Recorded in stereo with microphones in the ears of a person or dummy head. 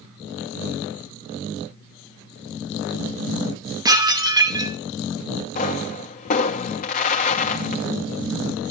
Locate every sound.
3.9 s dishes clattering: 20° right (ahead or behind), 1.0 m
5.5 s a pop: 45° left (ahead or behind), 1.2 m